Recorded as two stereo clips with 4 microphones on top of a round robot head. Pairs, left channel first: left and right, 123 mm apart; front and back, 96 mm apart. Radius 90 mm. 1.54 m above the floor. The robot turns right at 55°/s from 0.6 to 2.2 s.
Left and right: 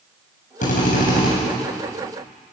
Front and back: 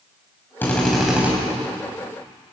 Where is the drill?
70° left, 8 m; by 1.3 s 110° left, 8 m.